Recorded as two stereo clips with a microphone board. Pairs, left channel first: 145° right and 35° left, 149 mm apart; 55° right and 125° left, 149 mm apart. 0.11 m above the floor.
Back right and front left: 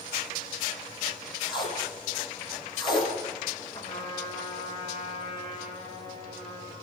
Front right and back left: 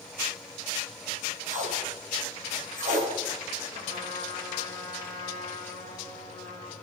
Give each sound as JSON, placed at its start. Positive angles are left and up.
{"t": 1.5, "sound": "tape being pulled", "azimuth_deg": 155, "distance_m": 6.0}
{"t": 3.7, "sound": "a trumpet", "azimuth_deg": 155, "distance_m": 9.5}